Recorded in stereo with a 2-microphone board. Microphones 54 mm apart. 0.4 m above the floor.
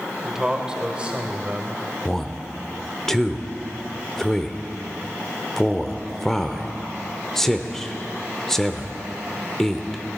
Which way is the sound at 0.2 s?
5° right (ahead or behind).